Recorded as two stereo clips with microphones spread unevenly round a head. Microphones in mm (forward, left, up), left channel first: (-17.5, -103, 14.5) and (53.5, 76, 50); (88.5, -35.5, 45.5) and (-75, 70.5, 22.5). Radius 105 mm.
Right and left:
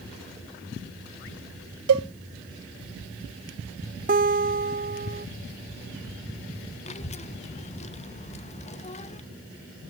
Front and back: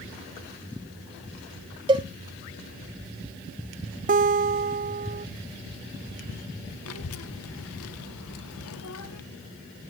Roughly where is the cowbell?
Left.